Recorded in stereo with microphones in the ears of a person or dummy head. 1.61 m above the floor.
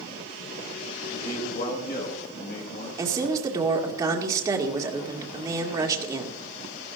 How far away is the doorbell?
I don't hear a doorbell.